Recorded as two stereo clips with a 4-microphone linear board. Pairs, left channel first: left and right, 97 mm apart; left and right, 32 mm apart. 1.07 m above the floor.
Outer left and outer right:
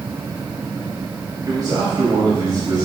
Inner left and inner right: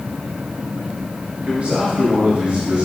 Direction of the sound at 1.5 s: 45° right (ahead or behind).